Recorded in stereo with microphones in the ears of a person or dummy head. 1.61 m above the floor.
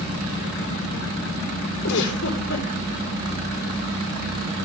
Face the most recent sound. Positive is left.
turn(degrees=65)  # may be behind; listen again after turning